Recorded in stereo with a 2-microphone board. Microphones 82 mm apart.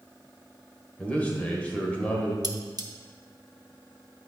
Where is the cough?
I don't hear a cough.